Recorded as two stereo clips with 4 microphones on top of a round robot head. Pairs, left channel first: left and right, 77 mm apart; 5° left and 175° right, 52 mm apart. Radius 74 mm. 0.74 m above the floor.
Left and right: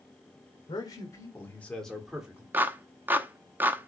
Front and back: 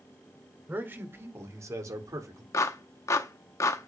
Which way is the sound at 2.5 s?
25° right.